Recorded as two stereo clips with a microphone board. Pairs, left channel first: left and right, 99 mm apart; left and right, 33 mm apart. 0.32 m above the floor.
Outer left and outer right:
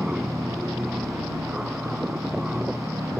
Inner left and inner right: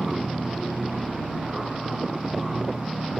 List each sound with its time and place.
0.0 s an aircraft: 10° right (ahead or behind)